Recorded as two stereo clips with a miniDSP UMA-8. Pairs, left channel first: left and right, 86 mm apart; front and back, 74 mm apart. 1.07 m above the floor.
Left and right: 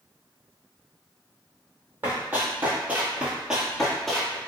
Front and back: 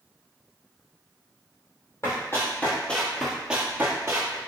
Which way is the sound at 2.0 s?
30° right.